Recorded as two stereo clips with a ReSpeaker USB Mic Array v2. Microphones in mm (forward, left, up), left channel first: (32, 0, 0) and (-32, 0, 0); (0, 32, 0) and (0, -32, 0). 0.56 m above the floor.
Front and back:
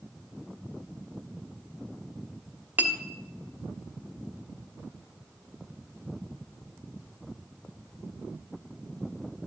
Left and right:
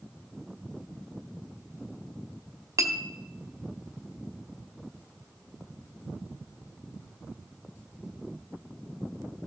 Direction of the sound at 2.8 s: 120° right.